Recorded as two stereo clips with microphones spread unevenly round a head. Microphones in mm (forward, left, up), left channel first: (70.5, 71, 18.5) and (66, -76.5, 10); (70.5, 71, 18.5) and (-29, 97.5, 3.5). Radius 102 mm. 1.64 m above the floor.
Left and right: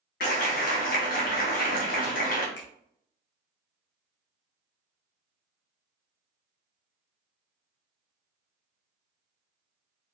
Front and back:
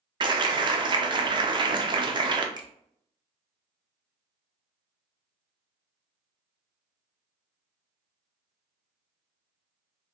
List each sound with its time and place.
0.2 s a clap: 120° left, 0.6 m
2.6 s a finger snap: 115° left, 0.8 m